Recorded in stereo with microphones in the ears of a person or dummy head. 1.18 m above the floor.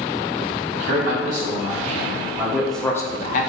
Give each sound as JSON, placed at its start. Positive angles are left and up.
{"t": 0.7, "sound": "a man speaking", "side_deg": -40, "distance_m": 1.5}